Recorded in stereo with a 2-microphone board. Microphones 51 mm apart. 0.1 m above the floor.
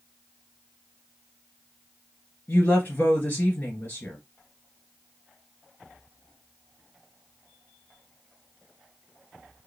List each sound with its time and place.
2.5 s a woman speaking: 40° left (ahead or behind), 2.0 m